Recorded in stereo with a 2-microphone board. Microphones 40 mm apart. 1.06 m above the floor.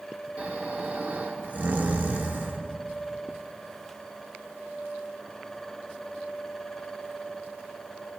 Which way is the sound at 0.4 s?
40° right (ahead or behind).